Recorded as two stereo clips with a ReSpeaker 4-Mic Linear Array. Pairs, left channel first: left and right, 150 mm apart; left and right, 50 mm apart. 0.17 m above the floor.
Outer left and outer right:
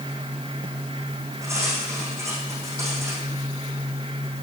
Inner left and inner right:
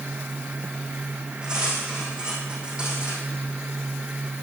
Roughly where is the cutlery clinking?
Centre.